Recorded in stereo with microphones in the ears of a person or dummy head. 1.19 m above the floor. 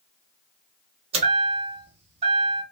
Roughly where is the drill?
I don't hear a drill.